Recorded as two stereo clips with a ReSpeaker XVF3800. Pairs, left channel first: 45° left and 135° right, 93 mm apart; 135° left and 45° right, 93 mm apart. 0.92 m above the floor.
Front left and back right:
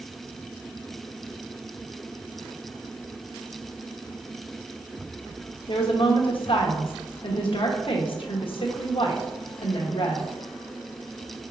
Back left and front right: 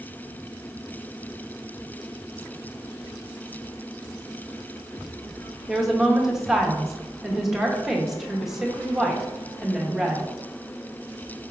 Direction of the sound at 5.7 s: 40° left.